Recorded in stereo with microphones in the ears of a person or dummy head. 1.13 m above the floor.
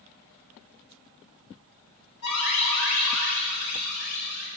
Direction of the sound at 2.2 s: 80° left.